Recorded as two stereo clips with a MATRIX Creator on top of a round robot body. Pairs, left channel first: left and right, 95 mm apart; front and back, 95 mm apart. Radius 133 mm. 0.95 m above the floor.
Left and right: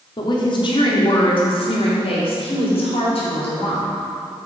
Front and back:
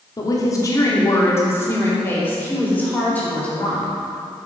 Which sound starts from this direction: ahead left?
A woman speaking, at 0.2 s.